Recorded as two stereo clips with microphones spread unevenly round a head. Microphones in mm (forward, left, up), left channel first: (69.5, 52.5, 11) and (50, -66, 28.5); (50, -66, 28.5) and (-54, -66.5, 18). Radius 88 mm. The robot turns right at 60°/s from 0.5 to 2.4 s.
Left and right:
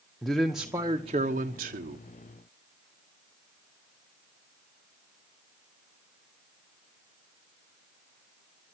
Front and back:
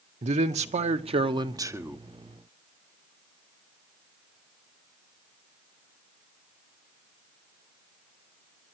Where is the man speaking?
170° left, 1.1 m; by 2.0 s 100° right, 1.1 m.